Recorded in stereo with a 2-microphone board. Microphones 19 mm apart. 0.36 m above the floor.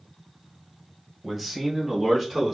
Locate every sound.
1.2 s a man speaking: 5° right (ahead or behind), 1.2 m; by 2.5 s 10° right (ahead or behind), 3 m